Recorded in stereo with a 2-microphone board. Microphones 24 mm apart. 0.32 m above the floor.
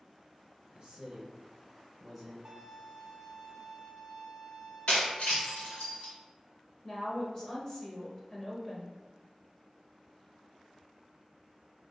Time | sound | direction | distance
0.7 | a man speaking | 40° right (ahead or behind) | 1.1 m
2.5 | a violin | 30° right (ahead or behind) | 0.7 m
4.9 | breaking glass | 70° left (ahead or behind) | 1.3 m
6.8 | a woman speaking | 20° left (ahead or behind) | 0.9 m